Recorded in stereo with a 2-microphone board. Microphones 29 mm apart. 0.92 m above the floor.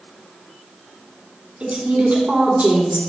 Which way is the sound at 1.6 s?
75° right (ahead or behind).